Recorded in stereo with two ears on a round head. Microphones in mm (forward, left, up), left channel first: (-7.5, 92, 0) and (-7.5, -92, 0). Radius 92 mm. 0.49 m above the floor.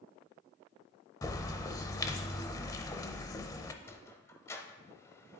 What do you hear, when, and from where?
1.2 s a bird: 15° left (ahead or behind), 0.5 m
3.8 s a sliding door: 15° left (ahead or behind), 0.7 m